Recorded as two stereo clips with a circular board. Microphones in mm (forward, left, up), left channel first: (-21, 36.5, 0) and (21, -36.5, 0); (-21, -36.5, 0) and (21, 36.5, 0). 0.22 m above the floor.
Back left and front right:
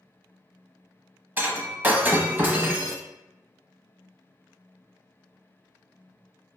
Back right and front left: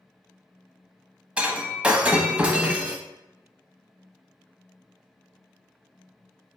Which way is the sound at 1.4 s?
5° right.